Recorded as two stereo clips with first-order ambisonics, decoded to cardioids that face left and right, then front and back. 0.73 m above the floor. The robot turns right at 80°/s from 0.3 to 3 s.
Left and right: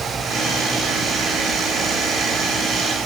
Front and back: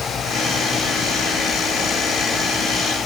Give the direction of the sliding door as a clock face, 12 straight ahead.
No sliding door in this recording.